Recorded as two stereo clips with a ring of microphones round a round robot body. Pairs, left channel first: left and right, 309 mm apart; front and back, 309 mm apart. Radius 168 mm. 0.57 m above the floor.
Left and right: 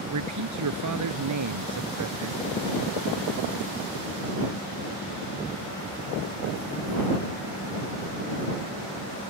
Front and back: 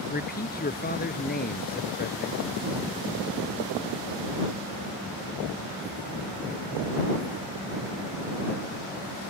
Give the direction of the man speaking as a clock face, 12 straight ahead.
2 o'clock.